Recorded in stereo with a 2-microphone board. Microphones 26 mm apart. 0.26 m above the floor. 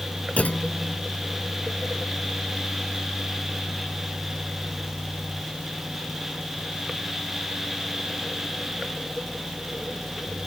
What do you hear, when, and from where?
0.4 s a clunk: 65° left (ahead or behind)